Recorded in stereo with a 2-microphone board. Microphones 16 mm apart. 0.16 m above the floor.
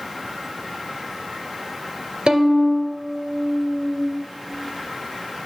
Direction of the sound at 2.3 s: 60° right (ahead or behind).